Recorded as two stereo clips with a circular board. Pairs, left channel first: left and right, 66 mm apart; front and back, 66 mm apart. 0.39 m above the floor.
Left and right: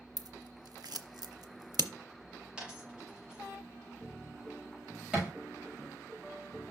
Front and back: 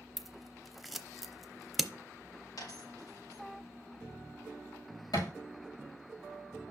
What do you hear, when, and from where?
0.2 s scissors: 90° right, 0.7 m
2.6 s a dropped coin: 15° right, 4 m
5.1 s a thud: 10° right, 5 m